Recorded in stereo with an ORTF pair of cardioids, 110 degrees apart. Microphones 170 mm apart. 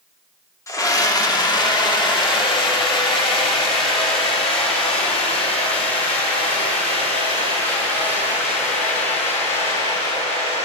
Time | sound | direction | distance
0.7 | a scream | 20° left | 2 m